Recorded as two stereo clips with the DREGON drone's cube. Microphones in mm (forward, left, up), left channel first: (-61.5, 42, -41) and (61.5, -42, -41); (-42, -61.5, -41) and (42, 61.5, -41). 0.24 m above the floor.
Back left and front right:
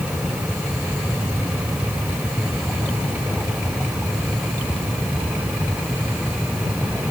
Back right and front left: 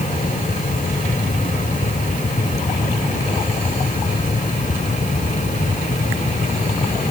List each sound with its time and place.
Only background noise.